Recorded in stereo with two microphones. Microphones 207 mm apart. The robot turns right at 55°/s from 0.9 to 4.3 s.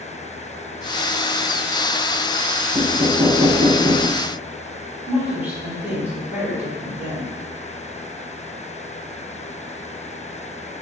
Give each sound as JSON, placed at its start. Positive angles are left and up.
{"t": 2.7, "sound": "knocking", "azimuth_deg": 170, "distance_m": 1.5}
{"t": 5.1, "sound": "a woman speaking", "side_deg": -10, "distance_m": 1.5}